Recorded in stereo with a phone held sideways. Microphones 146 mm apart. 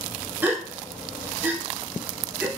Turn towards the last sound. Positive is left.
turn(degrees=-15)  # may be behind; listen again after turning